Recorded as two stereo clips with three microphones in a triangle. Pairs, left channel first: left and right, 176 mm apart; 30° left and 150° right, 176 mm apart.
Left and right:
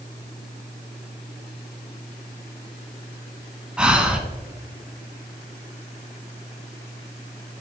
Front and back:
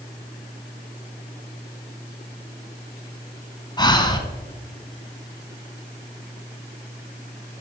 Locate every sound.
3.8 s breathing: 10° right, 0.9 m